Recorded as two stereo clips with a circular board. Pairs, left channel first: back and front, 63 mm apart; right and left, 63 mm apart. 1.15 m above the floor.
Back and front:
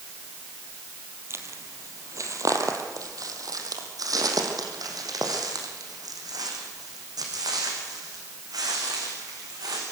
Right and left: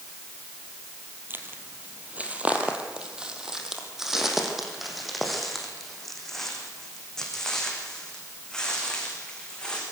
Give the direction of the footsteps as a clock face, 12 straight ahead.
11 o'clock.